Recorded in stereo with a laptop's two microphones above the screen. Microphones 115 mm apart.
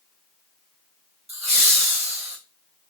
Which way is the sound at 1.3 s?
80° right.